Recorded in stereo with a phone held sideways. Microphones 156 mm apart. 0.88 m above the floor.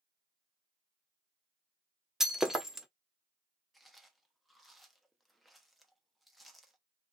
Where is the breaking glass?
Centre (ahead or behind), 0.6 m.